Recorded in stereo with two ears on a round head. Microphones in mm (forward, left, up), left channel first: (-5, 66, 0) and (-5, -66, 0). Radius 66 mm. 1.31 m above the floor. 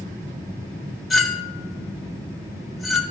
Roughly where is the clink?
Centre.